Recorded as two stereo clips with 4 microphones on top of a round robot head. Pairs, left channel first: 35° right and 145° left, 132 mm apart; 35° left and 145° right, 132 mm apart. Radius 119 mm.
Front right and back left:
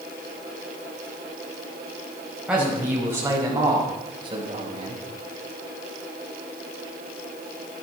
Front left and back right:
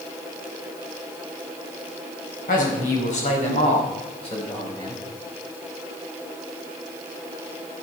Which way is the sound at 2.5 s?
60° left.